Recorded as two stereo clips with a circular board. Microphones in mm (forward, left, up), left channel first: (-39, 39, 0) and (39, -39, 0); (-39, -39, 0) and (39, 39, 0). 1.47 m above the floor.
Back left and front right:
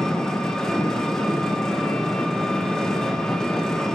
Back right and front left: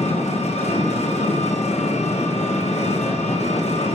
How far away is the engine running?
About 1.3 m.